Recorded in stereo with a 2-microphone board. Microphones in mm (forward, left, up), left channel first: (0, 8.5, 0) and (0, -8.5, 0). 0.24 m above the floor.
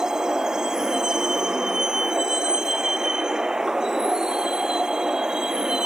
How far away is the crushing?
No crushing in this recording.